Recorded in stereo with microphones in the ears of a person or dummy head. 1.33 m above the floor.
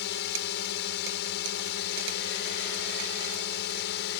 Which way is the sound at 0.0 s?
55° left (ahead or behind).